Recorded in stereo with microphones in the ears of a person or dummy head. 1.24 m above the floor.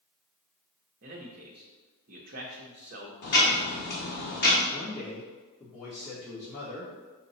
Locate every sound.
1.0 s a man speaking: 50° right (ahead or behind), 0.8 m
3.2 s ticking: 55° left (ahead or behind), 0.9 m
4.7 s a man speaking: 15° left (ahead or behind), 1.2 m